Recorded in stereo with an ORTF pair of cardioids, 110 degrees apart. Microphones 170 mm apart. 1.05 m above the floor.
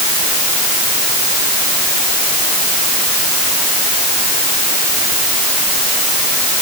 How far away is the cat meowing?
No cat meowing in this recording.